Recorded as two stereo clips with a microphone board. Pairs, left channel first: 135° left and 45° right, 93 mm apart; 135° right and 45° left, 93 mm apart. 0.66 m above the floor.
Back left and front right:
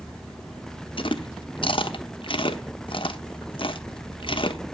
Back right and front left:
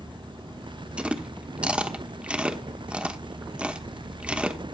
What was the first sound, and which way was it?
Chewing, 120° left.